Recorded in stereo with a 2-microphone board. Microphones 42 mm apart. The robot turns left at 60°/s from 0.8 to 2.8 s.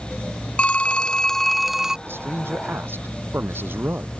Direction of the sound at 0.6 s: 50° left.